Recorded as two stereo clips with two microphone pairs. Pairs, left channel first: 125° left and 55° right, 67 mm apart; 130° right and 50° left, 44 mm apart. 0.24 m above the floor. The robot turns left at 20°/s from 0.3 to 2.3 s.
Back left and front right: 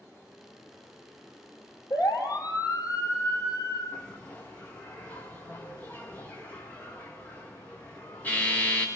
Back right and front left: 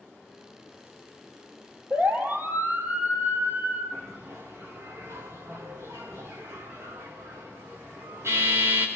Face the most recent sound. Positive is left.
turn(degrees=55)